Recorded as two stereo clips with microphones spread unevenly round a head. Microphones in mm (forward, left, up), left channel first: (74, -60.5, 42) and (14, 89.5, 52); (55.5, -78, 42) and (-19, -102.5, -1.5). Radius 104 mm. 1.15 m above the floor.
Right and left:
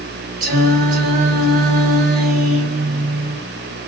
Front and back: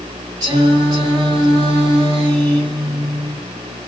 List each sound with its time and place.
0.4 s singing: 155° left, 4 m